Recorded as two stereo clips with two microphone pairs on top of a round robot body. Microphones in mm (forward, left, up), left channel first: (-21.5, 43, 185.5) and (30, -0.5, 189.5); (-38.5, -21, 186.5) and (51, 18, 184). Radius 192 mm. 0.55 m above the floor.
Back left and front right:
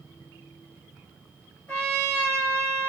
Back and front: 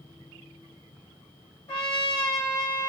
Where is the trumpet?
160° right, 2.5 m.